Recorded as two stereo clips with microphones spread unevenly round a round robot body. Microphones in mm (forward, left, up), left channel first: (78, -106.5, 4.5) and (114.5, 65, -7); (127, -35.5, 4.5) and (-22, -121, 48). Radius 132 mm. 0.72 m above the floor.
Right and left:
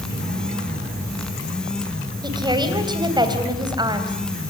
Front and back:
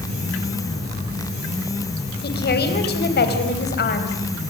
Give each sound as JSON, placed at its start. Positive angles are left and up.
{"t": 2.2, "sound": "a woman speaking", "azimuth_deg": 10, "distance_m": 3.5}